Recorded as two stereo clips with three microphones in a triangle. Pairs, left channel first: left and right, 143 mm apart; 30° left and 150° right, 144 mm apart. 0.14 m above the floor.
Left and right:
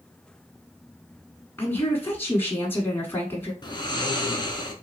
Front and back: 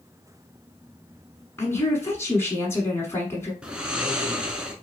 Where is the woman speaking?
55° left, 1.1 m.